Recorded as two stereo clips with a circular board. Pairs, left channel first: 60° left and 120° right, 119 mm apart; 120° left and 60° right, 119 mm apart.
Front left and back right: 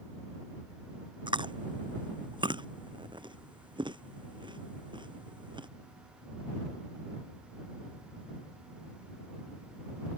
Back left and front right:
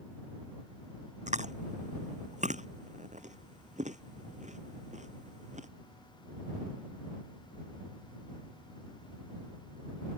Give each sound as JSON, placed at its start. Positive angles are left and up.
{"t": 1.3, "sound": "chewing", "azimuth_deg": -70}